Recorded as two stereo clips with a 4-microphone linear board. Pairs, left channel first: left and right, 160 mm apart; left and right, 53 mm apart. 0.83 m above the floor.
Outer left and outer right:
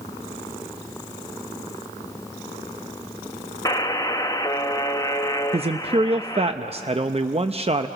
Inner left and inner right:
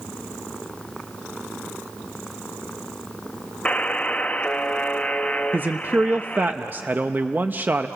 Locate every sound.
3.6 s a buzzer: 25° left (ahead or behind), 0.7 m
5.5 s a man speaking: 40° right (ahead or behind), 0.6 m